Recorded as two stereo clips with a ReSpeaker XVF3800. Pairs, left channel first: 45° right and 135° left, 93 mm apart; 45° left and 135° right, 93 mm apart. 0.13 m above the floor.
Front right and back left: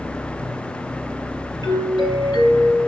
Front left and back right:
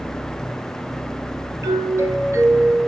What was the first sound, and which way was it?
A doorbell, 80° right.